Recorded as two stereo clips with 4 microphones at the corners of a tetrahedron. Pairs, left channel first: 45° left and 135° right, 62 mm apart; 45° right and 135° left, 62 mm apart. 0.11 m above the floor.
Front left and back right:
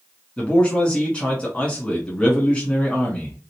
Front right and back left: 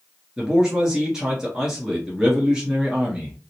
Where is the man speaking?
75° left, 1.2 m.